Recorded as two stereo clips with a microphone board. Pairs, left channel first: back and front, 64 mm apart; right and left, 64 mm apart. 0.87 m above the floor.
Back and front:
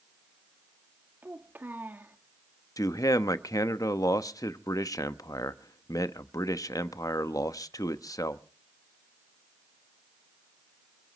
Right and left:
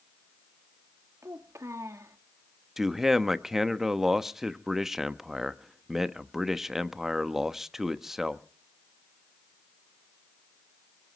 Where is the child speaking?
55° left, 1.4 m.